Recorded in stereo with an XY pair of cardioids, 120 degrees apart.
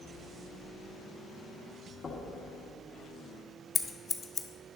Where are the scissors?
25° left, 0.7 m.